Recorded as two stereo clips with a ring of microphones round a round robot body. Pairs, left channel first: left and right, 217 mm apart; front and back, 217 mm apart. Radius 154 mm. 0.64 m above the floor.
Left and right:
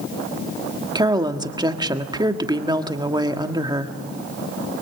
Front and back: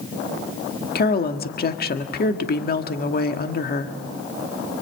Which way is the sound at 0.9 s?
25° right.